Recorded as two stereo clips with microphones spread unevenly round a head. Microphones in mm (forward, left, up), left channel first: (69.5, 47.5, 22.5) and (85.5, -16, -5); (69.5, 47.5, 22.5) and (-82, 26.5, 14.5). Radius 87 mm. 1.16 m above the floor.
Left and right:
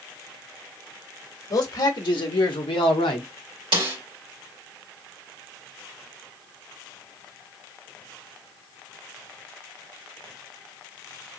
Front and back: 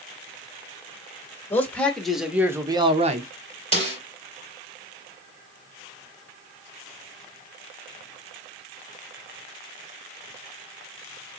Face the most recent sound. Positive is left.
turn(degrees=-115)